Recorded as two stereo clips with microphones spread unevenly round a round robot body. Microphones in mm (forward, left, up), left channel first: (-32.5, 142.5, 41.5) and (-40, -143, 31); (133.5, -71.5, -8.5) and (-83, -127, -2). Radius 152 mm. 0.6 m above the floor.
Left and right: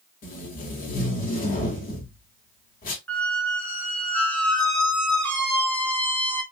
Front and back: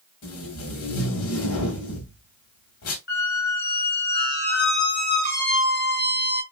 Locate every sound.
0.2 s tape being pulled: 25° left, 1.1 m
3.1 s a squeak: 5° left, 0.8 m